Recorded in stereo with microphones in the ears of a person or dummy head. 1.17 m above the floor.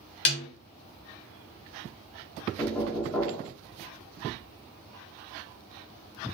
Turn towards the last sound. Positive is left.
turn(degrees=5)  # may be behind; listen again after turning